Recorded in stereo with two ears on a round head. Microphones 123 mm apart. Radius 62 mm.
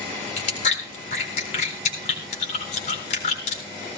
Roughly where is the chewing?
Left.